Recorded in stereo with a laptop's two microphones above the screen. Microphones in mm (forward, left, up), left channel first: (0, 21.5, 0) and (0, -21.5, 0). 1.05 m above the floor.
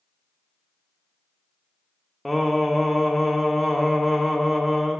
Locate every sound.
2.2 s singing: centre (ahead or behind), 0.7 m